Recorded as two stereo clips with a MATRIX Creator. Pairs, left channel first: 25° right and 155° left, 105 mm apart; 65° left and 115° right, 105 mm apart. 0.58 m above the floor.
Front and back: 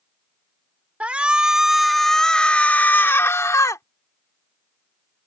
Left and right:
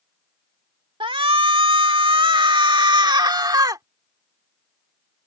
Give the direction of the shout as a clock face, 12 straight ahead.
4 o'clock.